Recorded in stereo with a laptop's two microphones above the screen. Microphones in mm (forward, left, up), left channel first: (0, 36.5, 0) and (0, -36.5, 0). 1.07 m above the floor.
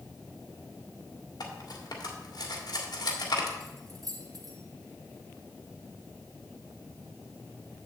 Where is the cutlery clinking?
75° left (ahead or behind), 1.8 m.